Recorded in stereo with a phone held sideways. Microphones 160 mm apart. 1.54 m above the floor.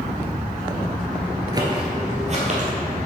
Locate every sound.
1.5 s footsteps: 25° right (ahead or behind), 1.8 m; by 2.7 s 50° right (ahead or behind), 3 m